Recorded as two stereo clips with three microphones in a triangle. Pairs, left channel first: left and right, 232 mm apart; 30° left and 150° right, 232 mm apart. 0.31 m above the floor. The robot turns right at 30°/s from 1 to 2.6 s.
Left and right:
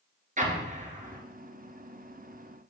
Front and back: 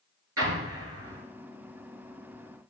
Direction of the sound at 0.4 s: 150° right.